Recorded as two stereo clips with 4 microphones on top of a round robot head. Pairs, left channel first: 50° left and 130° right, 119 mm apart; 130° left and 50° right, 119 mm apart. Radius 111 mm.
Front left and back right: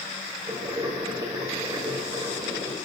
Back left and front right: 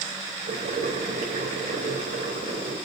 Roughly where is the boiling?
Right.